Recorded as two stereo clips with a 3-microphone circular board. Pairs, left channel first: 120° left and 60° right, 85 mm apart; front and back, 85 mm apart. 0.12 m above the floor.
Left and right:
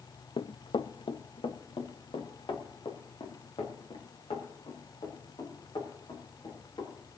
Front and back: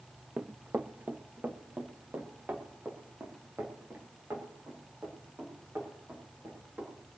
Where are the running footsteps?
105° left, 0.5 m; by 6.9 s 110° left, 7.5 m.